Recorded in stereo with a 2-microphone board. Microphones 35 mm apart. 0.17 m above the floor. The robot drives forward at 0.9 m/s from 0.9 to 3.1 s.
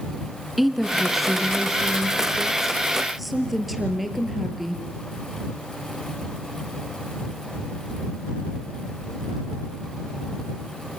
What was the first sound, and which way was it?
A woman speaking, 5° right (ahead or behind).